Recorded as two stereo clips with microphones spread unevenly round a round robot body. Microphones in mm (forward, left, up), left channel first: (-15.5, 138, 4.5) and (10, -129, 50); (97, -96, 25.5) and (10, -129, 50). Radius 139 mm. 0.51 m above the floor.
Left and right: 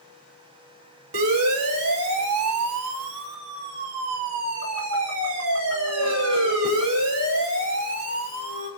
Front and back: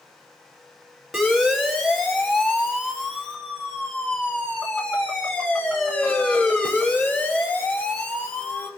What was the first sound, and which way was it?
A siren, 65° right.